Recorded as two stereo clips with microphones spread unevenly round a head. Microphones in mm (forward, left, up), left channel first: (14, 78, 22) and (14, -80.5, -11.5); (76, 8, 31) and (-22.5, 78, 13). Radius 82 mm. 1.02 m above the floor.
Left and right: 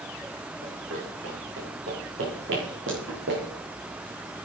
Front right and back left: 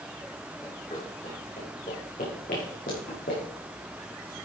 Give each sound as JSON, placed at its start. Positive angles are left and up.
{"t": 0.6, "sound": "running footsteps", "azimuth_deg": -95, "distance_m": 6.5}